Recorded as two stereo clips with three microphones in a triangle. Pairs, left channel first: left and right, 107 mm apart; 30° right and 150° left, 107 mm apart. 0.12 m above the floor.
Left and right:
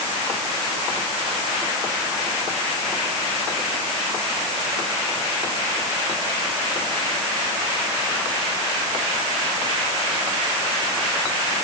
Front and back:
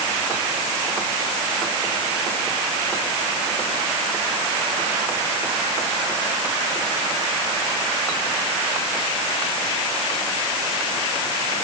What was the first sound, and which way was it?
Only background noise.